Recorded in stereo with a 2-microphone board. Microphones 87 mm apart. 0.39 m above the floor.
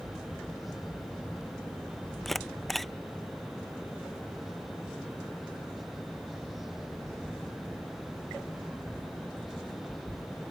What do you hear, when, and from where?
2.2 s a camera shutter: centre (ahead or behind)